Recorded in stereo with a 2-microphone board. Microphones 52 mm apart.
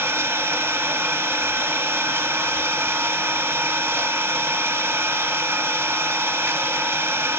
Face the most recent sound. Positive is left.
turn(degrees=-60)  # may be behind; listen again after turning